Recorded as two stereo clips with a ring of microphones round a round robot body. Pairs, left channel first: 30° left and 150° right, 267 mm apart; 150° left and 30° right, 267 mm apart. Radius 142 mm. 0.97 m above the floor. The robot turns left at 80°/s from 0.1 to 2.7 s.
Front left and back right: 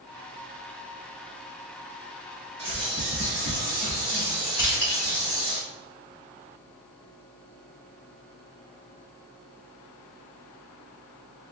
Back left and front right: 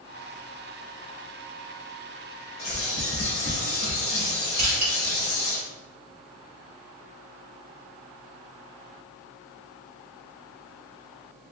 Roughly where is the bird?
Behind.